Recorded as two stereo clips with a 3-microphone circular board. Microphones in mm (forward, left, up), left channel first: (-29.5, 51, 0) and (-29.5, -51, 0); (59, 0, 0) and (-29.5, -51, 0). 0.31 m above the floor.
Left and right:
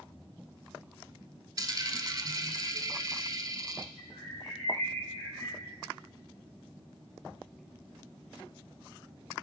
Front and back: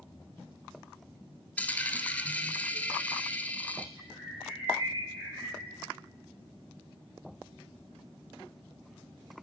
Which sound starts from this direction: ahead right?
A dropped coin, at 1.6 s.